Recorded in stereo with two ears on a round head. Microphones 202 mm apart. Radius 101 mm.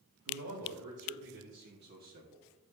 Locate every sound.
0.2 s a man speaking: 70° right (ahead or behind), 3.5 m; by 2.5 s 20° right (ahead or behind), 1.4 m